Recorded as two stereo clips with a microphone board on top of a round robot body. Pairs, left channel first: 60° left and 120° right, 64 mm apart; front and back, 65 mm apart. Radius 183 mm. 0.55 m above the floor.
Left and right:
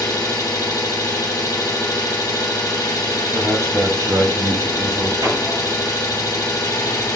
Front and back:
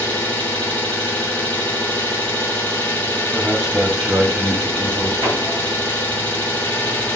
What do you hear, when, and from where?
0.0 s an engine running: 60° left, 1.1 m
3.3 s a man speaking: 110° right, 2 m
5.2 s hammering: 165° right, 2.5 m